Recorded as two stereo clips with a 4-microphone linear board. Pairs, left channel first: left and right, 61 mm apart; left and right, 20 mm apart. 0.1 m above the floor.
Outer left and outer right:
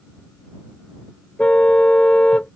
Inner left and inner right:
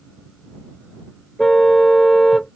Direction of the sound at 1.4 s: 20° left (ahead or behind).